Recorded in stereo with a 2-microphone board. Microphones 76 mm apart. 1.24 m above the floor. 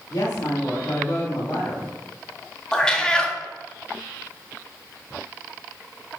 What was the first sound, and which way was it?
A woman speaking, 75° left (ahead or behind).